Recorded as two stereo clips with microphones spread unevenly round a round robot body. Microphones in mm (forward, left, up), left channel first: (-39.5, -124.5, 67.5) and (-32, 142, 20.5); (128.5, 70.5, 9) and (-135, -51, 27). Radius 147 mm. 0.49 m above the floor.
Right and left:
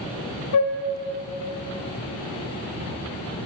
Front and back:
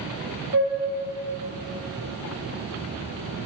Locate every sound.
0.5 s a flute: 95° right, 0.9 m